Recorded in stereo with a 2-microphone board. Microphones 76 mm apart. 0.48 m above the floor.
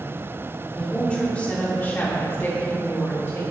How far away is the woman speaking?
About 1.4 m.